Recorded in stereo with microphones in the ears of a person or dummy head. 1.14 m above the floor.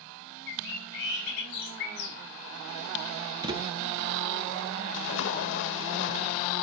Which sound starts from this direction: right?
A thud, at 3.4 s.